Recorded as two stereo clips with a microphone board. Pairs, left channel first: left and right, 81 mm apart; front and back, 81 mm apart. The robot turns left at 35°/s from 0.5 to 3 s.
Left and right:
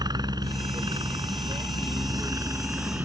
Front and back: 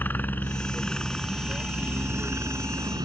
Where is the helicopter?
65° right; by 3.0 s 155° right.